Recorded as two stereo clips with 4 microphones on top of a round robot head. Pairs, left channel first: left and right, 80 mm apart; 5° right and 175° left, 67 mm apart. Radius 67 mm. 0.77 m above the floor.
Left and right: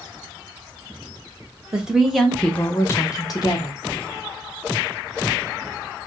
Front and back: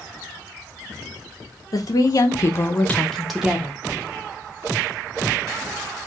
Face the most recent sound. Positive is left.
turn(degrees=110)